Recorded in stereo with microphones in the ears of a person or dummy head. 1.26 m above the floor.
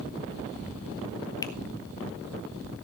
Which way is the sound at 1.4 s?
15° left (ahead or behind).